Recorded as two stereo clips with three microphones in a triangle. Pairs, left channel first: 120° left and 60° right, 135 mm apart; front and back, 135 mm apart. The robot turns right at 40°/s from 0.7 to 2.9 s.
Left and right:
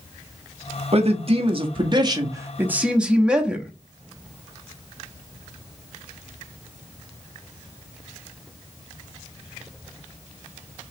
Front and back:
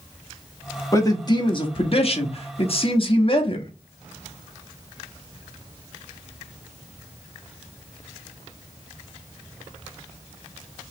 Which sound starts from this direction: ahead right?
A man speaking, at 0.9 s.